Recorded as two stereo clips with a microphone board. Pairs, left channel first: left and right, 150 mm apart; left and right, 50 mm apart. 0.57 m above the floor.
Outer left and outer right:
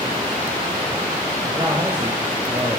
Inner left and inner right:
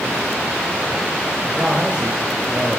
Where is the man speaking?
30° right (ahead or behind), 2.5 m.